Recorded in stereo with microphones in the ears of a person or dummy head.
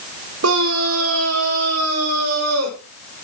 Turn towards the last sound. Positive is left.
turn(degrees=-80)